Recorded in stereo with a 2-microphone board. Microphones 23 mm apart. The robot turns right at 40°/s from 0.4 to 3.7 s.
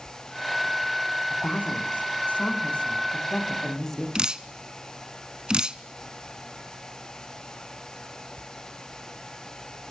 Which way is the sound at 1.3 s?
70° left.